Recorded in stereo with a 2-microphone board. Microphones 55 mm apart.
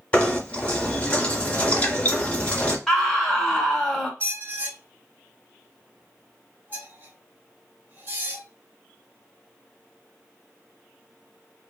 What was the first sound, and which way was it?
Knocking, 20° left (ahead or behind).